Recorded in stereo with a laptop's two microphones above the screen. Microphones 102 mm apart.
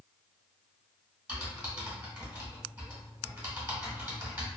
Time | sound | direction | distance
1.3 | typing on a keyboard | 15° right (ahead or behind) | 1.6 m